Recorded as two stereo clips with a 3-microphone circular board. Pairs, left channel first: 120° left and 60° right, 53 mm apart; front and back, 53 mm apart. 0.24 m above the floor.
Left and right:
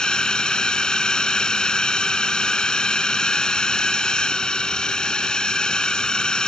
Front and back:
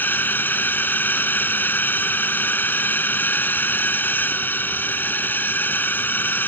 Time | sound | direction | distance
0.0 | a drone | 45° left | ?